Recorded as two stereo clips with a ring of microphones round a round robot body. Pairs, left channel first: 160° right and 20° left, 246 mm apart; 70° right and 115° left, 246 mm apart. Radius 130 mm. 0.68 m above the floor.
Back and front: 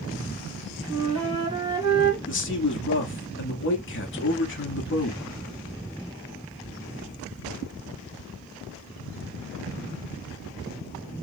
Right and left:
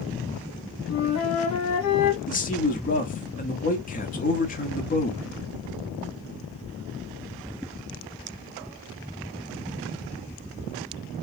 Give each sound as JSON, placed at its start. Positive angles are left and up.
{"t": 0.9, "sound": "a flute", "azimuth_deg": -50, "distance_m": 1.8}
{"t": 2.3, "sound": "a man speaking", "azimuth_deg": -120, "distance_m": 1.2}